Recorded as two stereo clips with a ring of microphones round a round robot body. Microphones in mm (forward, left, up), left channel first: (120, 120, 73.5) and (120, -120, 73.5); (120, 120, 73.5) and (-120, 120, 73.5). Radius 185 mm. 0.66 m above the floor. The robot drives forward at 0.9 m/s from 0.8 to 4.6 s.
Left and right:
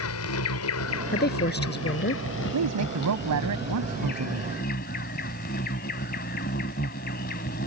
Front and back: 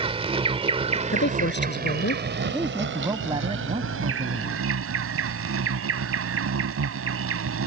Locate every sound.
0.0 s an insect: 115° left; by 7.7 s 155° left
1.1 s a woman speaking: 40° left; by 2.2 s 45° left
2.5 s a woman speaking: 95° right; by 4.5 s 115° right